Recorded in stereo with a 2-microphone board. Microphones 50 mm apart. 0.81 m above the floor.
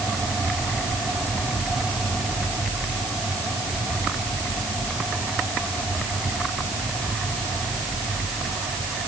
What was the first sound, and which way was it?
Only background noise.